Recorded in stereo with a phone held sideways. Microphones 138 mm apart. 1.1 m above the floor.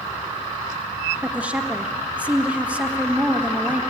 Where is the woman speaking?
10° right (ahead or behind), 1.5 m.